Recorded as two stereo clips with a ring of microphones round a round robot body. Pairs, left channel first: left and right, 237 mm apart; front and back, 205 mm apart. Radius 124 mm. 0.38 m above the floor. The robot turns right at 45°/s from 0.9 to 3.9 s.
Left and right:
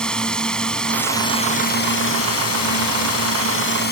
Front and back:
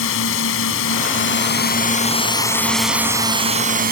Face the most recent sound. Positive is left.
turn(degrees=140)